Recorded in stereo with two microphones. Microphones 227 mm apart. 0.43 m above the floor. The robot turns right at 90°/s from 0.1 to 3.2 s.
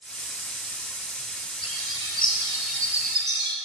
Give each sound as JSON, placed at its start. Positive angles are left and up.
{"t": 1.6, "sound": "a bird", "azimuth_deg": 85, "distance_m": 4.0}